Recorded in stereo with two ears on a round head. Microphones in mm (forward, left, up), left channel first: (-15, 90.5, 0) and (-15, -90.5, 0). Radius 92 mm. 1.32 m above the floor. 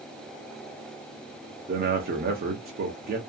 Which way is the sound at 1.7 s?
45° right (ahead or behind).